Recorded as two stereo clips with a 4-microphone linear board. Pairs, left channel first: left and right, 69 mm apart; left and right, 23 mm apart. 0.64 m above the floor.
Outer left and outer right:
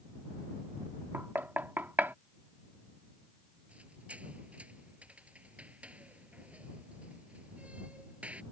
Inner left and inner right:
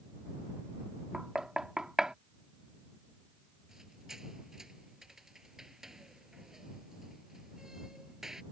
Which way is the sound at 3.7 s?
20° right (ahead or behind).